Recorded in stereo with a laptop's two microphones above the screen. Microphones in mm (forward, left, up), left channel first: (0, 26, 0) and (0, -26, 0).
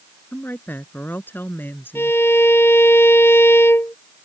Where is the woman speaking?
40° left (ahead or behind).